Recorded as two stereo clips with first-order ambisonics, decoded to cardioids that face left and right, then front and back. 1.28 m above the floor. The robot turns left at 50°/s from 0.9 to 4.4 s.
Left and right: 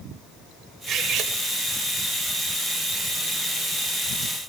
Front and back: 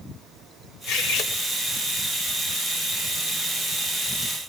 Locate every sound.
0.9 s cutlery clinking: 30° right, 3 m; by 1.3 s 50° right, 3 m